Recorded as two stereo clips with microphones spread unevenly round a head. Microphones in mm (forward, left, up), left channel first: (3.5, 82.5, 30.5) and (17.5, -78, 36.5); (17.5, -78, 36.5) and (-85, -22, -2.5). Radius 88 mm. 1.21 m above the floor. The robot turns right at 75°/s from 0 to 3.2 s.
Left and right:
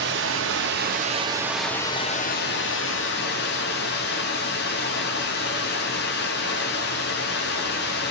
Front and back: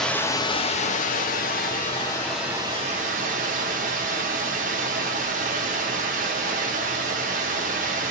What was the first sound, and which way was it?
Running water, 115° right.